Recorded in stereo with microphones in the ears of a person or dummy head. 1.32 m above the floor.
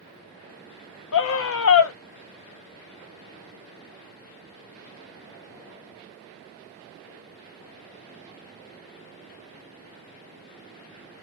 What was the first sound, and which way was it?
A scream, 75° left (ahead or behind).